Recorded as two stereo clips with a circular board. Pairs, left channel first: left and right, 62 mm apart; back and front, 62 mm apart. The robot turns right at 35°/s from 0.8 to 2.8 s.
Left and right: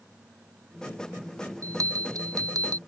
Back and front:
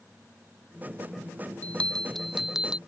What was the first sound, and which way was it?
A bell, 115° right.